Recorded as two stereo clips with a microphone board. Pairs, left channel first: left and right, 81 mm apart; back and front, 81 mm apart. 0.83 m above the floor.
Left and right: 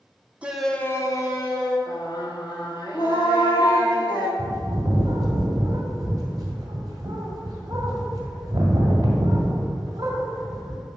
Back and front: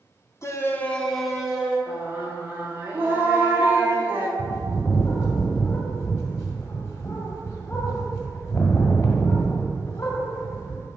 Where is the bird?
135° right, 1.4 m.